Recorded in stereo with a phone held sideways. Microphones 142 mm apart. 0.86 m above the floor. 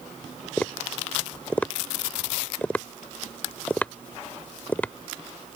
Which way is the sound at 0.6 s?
10° left (ahead or behind).